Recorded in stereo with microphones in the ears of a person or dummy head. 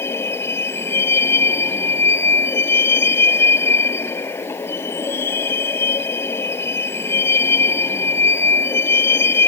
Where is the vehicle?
10° left (ahead or behind).